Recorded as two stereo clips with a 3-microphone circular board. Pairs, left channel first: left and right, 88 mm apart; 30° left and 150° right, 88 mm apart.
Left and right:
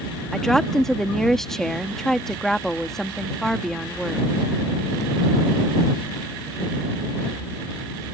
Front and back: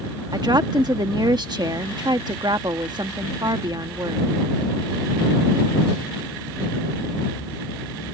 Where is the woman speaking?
175° left.